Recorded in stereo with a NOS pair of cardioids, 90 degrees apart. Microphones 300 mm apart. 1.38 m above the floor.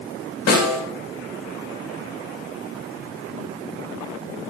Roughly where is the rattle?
No rattle in this recording.